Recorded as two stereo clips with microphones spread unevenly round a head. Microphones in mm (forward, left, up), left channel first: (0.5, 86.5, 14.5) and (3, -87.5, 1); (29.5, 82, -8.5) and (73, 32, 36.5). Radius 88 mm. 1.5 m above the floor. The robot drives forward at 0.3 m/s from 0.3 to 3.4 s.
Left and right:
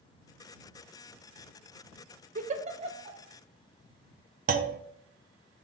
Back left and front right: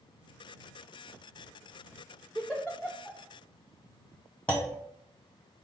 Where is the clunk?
125° right, 0.5 m.